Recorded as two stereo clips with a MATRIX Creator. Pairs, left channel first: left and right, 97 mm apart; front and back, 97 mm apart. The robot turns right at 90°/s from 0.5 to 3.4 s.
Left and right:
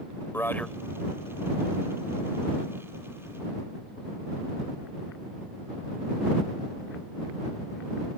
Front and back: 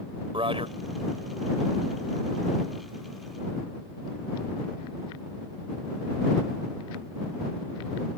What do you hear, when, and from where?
0.3 s a man speaking: 155° left; by 0.8 s straight behind